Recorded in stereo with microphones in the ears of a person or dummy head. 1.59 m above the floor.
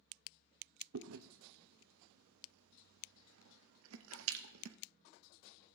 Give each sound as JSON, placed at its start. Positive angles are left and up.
{"t": 0.9, "sound": "chewing", "side_deg": -80, "distance_m": 0.7}